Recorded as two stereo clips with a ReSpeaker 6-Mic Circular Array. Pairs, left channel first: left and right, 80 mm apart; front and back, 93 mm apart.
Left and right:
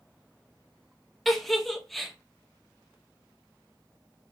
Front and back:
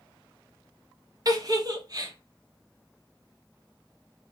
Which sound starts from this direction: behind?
A giggle, at 1.2 s.